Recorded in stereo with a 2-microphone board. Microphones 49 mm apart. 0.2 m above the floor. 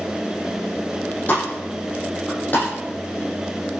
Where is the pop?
35° left (ahead or behind), 9 m.